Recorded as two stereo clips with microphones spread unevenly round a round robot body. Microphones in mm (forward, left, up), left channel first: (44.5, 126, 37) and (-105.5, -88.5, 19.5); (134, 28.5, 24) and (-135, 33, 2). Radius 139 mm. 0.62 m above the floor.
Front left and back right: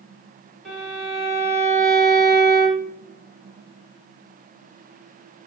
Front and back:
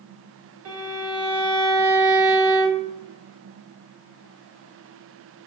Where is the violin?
145° left, 3 m.